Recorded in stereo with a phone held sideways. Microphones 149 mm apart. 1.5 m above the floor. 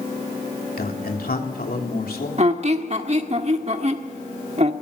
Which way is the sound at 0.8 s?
85° left.